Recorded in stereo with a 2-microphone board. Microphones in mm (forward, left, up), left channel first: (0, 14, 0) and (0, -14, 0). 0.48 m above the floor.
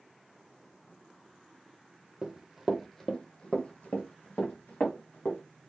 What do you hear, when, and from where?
2.2 s running footsteps: 25° right (ahead or behind), 0.7 m; by 5.4 s 75° left (ahead or behind), 1.6 m